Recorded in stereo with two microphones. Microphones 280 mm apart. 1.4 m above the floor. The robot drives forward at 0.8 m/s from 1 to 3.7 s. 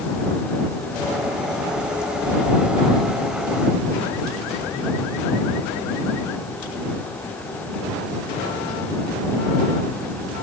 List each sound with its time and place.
Only background noise.